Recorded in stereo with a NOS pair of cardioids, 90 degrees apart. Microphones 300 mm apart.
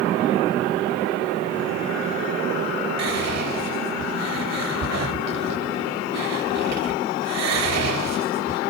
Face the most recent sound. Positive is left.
turn(degrees=-60)